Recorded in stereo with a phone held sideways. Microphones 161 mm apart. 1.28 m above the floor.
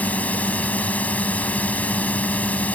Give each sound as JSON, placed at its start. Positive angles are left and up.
{"t": 0.0, "sound": "a drone", "side_deg": 10}